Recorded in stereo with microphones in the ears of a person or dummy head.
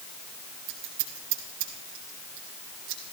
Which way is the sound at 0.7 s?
65° right (ahead or behind).